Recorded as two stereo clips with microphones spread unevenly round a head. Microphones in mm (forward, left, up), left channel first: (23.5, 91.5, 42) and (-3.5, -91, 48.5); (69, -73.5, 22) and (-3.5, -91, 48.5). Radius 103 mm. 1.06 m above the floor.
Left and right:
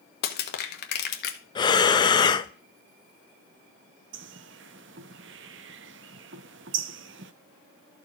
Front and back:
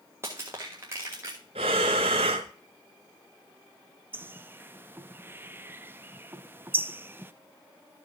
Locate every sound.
0.2 s crushing: 120° left, 1.3 m
1.6 s breathing: 150° left, 0.6 m
4.1 s a bird: 125° right, 0.5 m